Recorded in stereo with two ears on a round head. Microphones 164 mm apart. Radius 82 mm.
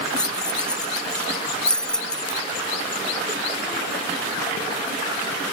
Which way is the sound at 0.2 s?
5° left (ahead or behind).